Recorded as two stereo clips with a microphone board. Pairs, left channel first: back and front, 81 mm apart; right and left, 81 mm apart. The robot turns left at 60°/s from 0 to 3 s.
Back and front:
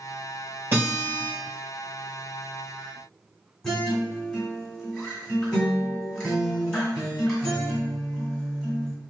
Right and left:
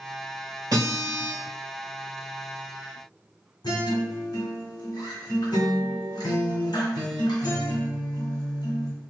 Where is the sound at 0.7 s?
60° left, 1.6 m; by 1.3 s 20° left, 1.6 m.